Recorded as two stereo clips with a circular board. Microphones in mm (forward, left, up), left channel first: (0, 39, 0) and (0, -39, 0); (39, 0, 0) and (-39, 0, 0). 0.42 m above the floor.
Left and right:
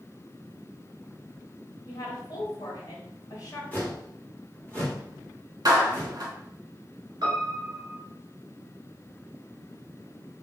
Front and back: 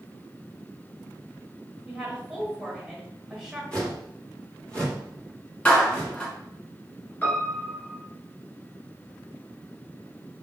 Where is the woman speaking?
105° left, 1.8 m.